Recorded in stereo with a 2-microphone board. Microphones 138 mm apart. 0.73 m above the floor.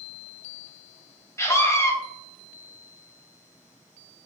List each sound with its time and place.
1.4 s a scream: 20° left (ahead or behind), 0.6 m